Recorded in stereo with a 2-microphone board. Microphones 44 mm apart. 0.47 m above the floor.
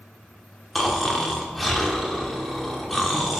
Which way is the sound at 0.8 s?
Centre (ahead or behind).